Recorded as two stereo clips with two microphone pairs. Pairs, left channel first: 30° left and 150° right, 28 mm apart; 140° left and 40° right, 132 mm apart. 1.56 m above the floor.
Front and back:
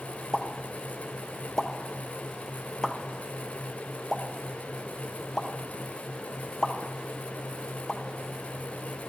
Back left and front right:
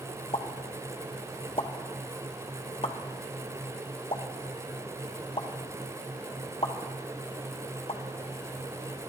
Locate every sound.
0.3 s a pop: 95° left, 0.8 m